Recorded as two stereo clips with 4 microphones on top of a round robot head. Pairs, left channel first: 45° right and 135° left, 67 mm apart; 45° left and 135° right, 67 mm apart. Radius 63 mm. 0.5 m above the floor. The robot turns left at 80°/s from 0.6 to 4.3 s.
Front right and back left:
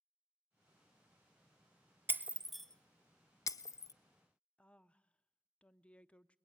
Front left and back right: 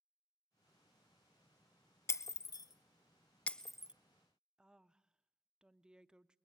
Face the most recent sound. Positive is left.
turn(degrees=-80)